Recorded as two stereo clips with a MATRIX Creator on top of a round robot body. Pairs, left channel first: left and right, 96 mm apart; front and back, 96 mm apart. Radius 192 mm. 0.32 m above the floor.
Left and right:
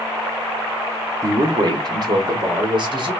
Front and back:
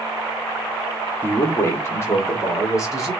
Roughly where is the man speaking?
Ahead right.